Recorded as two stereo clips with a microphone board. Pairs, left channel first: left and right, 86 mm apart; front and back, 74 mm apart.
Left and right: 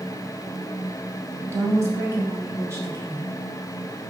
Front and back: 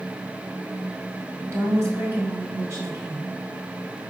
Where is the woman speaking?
140° right, 1.7 m.